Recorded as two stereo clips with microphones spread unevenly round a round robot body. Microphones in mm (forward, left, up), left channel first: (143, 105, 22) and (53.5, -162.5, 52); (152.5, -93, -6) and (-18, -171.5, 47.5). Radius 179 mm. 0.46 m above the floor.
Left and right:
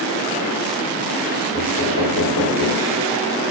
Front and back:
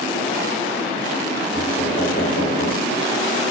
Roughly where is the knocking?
Left.